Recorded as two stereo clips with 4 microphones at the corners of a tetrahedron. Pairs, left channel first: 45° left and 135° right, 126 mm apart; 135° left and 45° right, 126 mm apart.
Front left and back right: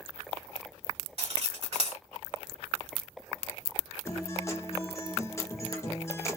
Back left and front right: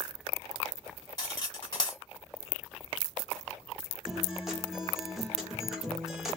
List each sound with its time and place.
1.2 s cutlery clinking: 170° right, 1.4 m
4.0 s a guitar: 40° left, 0.9 m